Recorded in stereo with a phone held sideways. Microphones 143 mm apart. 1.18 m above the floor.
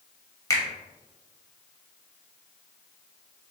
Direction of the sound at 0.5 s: 20° left (ahead or behind).